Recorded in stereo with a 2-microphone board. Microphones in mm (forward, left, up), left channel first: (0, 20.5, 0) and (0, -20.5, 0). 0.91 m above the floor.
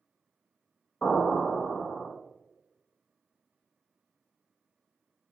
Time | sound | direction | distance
1.0 | an explosion | 40° left (ahead or behind) | 1.3 m